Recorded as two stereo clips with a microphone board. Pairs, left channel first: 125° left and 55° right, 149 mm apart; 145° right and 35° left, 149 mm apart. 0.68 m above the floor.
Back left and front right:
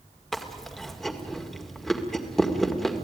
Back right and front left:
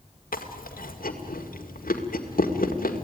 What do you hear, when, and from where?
0.3 s chewing: 150° right, 2.0 m